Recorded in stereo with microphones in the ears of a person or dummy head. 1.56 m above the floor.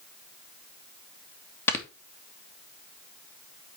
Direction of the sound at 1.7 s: 15° left (ahead or behind).